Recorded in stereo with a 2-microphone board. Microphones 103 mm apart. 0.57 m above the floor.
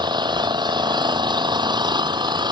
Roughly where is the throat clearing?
No throat clearing in this recording.